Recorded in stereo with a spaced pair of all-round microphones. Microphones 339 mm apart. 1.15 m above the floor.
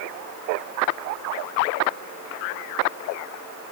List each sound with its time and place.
Only background noise.